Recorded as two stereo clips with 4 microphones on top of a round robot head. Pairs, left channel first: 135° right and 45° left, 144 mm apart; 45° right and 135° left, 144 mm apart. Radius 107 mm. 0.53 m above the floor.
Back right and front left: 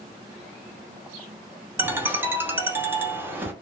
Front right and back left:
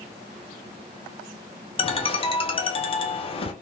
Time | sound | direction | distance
1.8 | a ringtone | 20° right | 0.8 m